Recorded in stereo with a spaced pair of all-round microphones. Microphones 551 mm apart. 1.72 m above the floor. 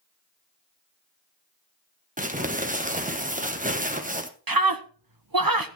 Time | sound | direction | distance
2.2 | crumpling | 15° right (ahead or behind) | 1.4 m
4.5 | a scream | 40° right (ahead or behind) | 1.1 m